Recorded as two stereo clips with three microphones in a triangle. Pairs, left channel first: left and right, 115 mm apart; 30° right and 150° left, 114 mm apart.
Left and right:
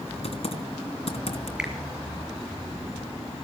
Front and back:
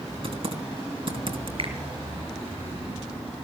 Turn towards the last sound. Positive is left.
turn(degrees=-170)